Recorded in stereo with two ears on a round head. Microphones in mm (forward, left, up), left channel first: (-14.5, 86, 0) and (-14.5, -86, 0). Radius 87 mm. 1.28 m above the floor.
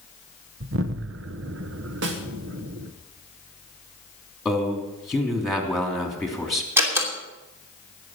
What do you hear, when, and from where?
0.6 s an explosion: 65° right (ahead or behind), 0.9 m
2.0 s a snare drum: 70° right (ahead or behind), 1.8 m
4.5 s a man speaking: centre (ahead or behind), 3.5 m
6.8 s a door slam: 15° right (ahead or behind), 3 m